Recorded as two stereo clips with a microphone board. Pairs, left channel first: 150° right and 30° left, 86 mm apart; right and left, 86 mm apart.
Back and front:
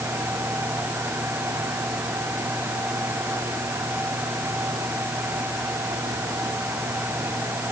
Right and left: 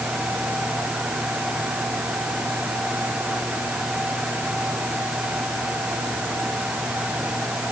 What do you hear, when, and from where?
Only background noise.